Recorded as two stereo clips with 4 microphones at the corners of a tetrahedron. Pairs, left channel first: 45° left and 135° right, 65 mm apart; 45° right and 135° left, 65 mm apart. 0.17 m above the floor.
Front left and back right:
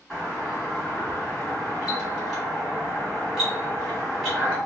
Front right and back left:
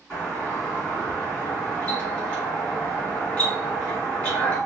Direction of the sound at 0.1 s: 55° right.